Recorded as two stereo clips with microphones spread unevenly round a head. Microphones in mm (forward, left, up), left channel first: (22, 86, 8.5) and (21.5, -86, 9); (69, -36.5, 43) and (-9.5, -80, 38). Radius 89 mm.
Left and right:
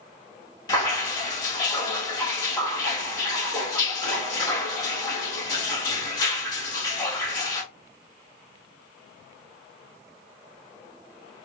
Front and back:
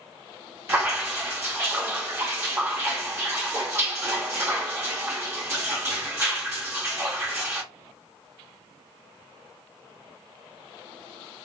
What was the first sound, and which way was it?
Dripping, 155° left.